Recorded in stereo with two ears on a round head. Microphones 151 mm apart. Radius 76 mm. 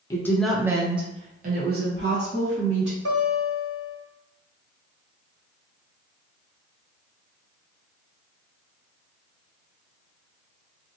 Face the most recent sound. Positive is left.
turn(degrees=-75)  # may be behind; listen again after turning